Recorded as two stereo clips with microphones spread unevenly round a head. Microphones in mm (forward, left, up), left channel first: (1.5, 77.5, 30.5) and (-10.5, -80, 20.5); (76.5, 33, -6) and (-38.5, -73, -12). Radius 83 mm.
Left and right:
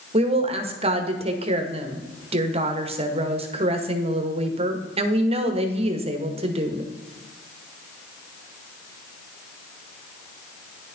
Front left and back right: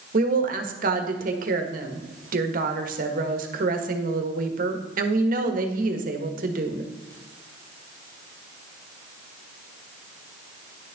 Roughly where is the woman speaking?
Behind right.